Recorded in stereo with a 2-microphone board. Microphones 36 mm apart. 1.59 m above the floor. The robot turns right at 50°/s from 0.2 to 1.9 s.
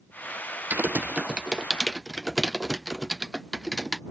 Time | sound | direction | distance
0.7 | typing on a keyboard | 50° right (ahead or behind) | ?